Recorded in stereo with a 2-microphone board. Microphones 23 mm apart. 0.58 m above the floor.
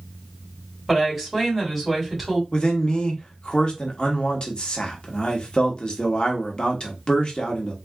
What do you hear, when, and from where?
0.9 s a woman speaking: 10° right (ahead or behind), 2.5 m
2.5 s a man speaking: 40° left (ahead or behind), 1.1 m